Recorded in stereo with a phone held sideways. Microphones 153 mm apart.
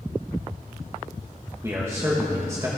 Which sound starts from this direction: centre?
A man speaking, at 1.6 s.